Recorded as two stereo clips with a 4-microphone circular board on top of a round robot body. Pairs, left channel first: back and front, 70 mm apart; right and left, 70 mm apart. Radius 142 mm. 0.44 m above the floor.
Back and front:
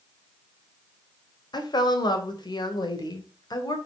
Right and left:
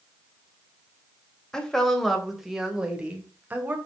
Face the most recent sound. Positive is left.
turn(degrees=155)